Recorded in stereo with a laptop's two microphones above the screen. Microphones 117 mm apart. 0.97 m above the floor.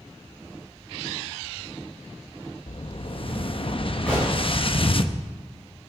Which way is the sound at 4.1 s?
10° left (ahead or behind).